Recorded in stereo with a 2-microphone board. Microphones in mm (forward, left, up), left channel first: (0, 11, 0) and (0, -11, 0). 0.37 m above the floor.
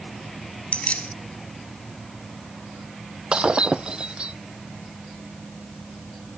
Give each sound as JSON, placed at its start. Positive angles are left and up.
{"t": 0.7, "sound": "keys jangling", "side_deg": 70}
{"t": 3.3, "sound": "breaking glass", "side_deg": -50}